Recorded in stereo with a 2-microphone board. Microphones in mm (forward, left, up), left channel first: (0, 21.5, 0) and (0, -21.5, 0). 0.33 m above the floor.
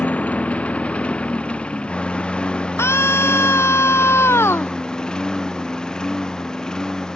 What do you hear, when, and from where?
0.0 s a lawn mower: 30° left (ahead or behind); by 7.2 s 15° left (ahead or behind)
2.8 s a scream: 85° left